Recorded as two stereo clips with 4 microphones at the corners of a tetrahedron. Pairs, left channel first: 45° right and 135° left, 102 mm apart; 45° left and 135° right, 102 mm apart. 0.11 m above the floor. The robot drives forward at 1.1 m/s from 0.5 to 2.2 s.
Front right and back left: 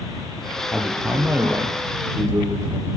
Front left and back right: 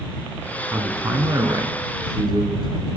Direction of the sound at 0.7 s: 125° right.